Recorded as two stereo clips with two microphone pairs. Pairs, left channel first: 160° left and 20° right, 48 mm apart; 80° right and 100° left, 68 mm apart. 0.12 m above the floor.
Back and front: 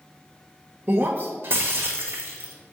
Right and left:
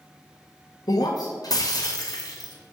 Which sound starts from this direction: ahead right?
Breaking glass, at 0.9 s.